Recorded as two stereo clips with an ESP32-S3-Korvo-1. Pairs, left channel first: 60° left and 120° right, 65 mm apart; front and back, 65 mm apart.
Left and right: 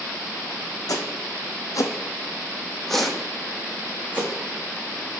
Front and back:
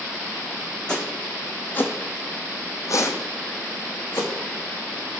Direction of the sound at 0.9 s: 75° left.